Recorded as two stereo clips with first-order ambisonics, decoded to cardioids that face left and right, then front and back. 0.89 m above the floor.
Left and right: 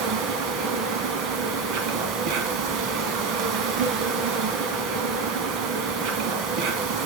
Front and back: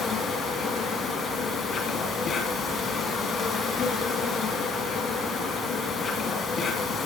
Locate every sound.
0.0 s an insect: 65° right, 2.5 m